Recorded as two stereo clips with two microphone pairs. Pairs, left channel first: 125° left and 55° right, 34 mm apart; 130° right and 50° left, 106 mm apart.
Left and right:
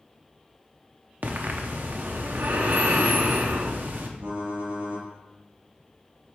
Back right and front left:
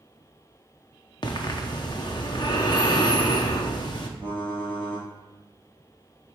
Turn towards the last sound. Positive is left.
turn(degrees=-55)